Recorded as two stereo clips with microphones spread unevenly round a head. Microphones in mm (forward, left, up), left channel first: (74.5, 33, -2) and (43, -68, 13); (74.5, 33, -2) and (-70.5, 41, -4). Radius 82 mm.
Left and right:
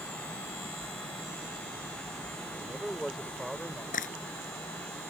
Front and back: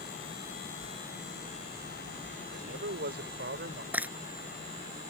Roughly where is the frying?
Left.